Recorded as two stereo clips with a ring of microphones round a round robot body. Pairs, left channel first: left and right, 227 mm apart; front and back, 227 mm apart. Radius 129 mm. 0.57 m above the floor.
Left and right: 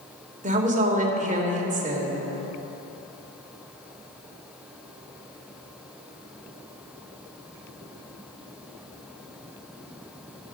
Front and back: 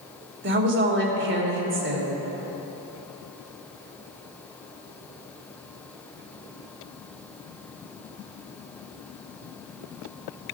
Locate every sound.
0.4 s a woman speaking: 145° right, 2.5 m